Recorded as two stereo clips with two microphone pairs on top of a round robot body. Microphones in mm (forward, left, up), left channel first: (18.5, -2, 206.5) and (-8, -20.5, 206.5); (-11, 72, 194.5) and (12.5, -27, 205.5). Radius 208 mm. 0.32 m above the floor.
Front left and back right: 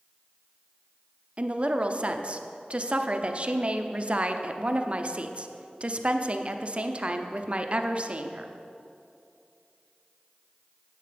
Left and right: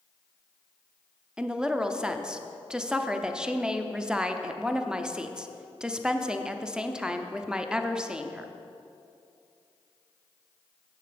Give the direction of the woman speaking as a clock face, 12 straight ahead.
5 o'clock.